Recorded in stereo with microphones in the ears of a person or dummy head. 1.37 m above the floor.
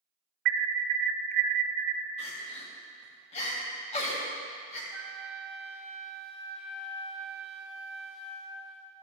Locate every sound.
0.5 s an alarm: 55° right (ahead or behind), 0.6 m
2.2 s crying: 35° left (ahead or behind), 1.6 m
4.9 s a flute: 5° left (ahead or behind), 1.0 m